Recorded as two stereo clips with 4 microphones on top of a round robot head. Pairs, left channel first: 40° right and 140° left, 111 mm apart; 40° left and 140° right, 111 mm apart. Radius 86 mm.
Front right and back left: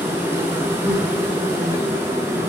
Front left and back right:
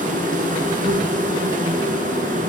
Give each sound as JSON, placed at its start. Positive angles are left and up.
{"t": 0.0, "sound": "an insect", "azimuth_deg": -150, "distance_m": 2.0}